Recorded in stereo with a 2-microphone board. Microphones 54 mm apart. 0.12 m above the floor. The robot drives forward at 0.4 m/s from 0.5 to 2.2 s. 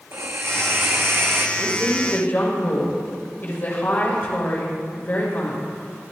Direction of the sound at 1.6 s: 40° left (ahead or behind).